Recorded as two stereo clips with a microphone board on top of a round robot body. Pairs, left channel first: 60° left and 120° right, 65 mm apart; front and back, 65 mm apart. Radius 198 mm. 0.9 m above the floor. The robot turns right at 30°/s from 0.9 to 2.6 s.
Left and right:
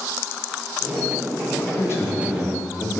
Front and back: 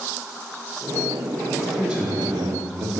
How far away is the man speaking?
About 2 m.